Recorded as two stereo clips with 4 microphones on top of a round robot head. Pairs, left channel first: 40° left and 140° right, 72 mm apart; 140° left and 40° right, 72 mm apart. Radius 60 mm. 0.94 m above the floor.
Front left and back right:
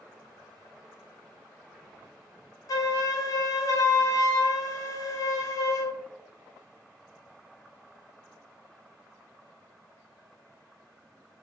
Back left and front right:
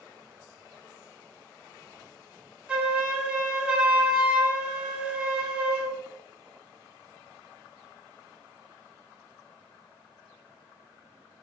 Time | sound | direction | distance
2.7 | a flute | 30° left | 0.6 m